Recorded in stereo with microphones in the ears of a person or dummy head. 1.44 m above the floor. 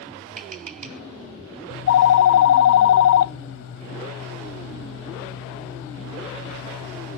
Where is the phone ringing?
65° left (ahead or behind), 0.7 m.